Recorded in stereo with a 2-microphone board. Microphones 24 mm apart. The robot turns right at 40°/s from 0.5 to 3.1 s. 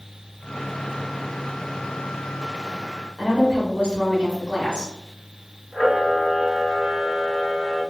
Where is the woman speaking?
35° right (ahead or behind), 1.1 m.